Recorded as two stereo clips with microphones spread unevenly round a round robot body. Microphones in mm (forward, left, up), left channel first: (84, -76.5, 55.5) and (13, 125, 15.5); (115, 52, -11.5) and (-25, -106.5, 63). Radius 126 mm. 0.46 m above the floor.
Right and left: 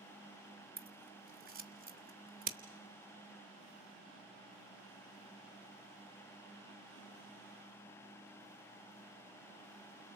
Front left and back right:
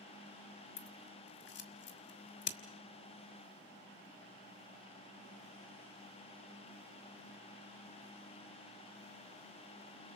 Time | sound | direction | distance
0.8 | scissors | 70° left | 1.8 m